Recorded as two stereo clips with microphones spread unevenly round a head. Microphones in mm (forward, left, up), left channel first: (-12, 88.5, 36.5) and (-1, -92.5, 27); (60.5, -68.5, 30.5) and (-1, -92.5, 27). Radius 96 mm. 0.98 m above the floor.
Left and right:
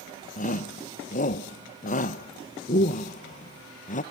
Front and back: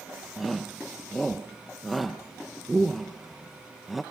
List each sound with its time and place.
0.4 s a shout: 115° left, 0.9 m